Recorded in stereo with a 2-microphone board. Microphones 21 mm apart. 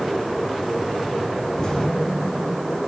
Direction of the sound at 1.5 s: 35° left (ahead or behind).